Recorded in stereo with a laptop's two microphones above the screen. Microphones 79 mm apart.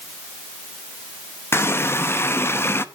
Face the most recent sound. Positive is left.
turn(degrees=30)  # may be behind; listen again after turning